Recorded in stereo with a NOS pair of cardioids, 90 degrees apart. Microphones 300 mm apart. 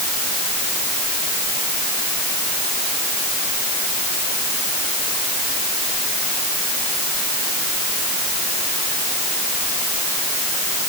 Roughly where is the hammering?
No hammering in this recording.